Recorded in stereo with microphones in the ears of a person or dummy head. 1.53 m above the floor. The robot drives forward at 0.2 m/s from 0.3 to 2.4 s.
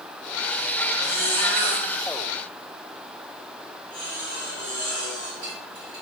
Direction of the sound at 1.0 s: 15° left (ahead or behind).